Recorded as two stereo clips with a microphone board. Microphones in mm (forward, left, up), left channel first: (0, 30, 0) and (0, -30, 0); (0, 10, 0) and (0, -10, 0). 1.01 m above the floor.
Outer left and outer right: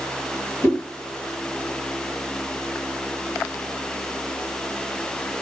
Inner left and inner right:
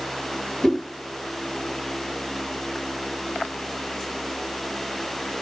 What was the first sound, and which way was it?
A whoosh, 50° left (ahead or behind).